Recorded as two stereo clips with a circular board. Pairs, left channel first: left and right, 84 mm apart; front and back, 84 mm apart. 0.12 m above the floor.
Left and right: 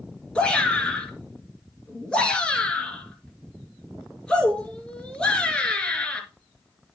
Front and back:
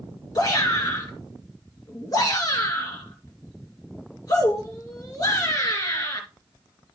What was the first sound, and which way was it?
A shout, 15° left.